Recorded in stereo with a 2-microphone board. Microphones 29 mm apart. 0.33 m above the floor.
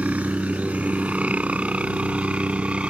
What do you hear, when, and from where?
0.0 s a helicopter: 55° right (ahead or behind); by 2.9 s 40° right (ahead or behind)